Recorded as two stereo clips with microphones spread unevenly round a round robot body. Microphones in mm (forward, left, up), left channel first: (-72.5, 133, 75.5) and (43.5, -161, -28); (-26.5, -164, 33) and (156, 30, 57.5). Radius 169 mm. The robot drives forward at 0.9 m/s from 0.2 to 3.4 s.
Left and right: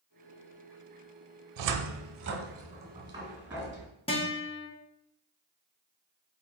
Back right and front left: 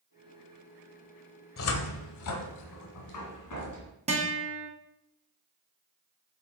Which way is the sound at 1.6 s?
90° right.